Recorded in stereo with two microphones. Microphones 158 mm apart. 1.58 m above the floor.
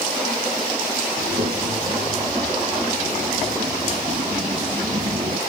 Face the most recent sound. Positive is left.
turn(degrees=-40)  # may be behind; listen again after turning